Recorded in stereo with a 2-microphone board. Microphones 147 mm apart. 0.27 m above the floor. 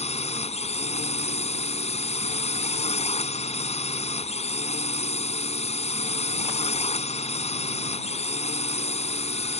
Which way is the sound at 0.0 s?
45° left (ahead or behind).